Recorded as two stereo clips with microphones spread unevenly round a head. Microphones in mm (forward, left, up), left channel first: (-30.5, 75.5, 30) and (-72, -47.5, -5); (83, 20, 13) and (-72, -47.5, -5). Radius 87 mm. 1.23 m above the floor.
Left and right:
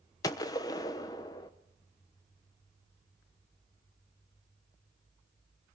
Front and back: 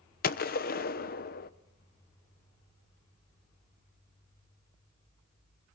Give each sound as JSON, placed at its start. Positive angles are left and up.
{"t": 0.2, "sound": "a gunshot", "azimuth_deg": -5, "distance_m": 0.9}